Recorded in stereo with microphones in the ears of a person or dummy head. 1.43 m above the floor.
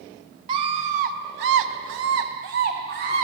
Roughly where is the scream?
Right.